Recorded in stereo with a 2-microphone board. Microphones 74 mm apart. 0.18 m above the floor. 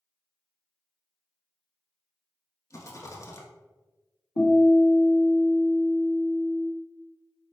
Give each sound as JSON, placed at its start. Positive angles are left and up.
{"t": 2.7, "sound": "a rattle", "side_deg": 45, "distance_m": 0.8}
{"t": 4.4, "sound": "a guitar", "side_deg": 50, "distance_m": 1.6}